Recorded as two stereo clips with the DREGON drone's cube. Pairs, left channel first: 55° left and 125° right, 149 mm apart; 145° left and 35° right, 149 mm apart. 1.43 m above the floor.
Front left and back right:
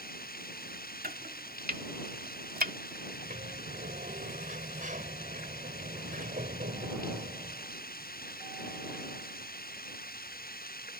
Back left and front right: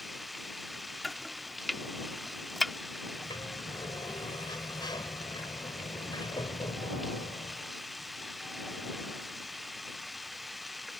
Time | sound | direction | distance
0.0 | running water | 55° left | ?
1.0 | chopping | 125° right | ?
3.1 | a sliding door | 150° right | ?